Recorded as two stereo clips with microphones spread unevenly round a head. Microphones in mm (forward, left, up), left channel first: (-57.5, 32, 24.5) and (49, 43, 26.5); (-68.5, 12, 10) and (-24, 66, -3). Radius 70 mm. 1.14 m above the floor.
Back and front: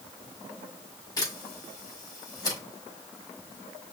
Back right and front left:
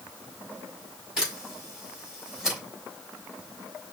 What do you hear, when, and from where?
1.2 s a camera shutter: 130° left, 3.5 m